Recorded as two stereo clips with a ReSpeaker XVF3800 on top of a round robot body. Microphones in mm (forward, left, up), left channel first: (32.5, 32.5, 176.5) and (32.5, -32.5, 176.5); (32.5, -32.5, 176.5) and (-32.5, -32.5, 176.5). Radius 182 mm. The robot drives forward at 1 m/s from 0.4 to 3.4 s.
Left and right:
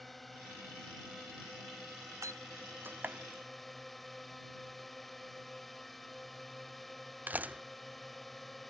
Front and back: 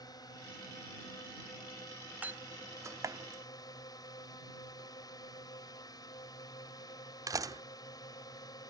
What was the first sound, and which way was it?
A drone, straight ahead.